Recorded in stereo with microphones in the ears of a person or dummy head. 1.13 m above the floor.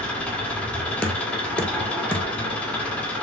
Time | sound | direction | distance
0.0 | an engine running | 10° left (ahead or behind) | 1.8 m
1.0 | knocking | 10° left (ahead or behind) | 1.2 m